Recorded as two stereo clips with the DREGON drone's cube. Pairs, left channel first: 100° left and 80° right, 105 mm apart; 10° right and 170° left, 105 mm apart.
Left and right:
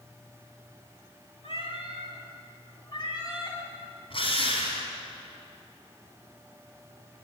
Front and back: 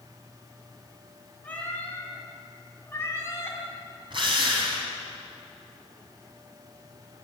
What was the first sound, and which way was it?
A cat meowing, 65° left.